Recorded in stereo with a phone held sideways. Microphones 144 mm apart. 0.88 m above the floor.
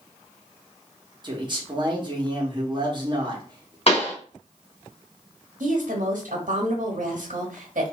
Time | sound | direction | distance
1.2 | a man speaking | 35° right (ahead or behind) | 1.3 m
3.9 | a pop | 45° left (ahead or behind) | 1.3 m
5.6 | a woman speaking | 75° right (ahead or behind) | 1.3 m